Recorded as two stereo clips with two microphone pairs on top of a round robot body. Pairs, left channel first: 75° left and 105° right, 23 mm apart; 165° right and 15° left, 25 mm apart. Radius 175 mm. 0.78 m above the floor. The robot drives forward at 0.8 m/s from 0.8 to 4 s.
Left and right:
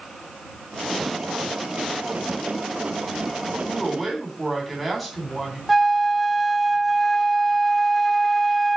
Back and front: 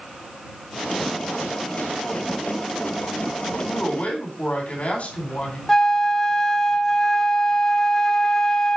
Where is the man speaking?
160° left, 3.5 m.